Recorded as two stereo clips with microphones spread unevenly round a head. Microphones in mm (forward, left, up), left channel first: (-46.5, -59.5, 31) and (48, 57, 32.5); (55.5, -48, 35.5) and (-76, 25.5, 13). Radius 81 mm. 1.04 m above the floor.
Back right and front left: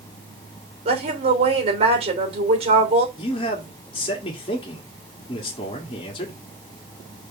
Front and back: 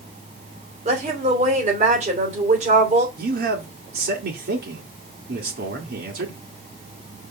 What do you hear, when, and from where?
0.8 s a woman speaking: 105° left, 3 m
3.2 s a man speaking: 170° left, 2.0 m